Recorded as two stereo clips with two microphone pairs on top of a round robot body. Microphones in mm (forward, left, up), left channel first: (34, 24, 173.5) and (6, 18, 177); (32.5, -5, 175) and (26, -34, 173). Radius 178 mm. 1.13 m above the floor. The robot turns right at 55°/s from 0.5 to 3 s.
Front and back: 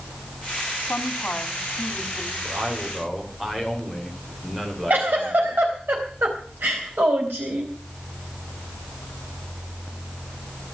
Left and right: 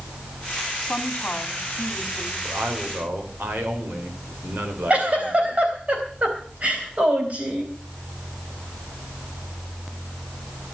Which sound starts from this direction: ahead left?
A woman speaking, at 0.8 s.